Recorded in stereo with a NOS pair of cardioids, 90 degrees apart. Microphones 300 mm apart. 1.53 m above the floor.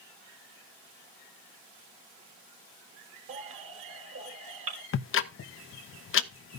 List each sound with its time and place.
3.3 s a baby crying: 45° right, 3.5 m
4.9 s ticking: 45° left, 0.8 m